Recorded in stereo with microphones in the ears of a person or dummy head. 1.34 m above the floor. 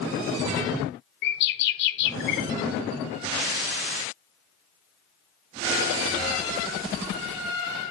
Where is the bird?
55° left (ahead or behind), 0.7 m.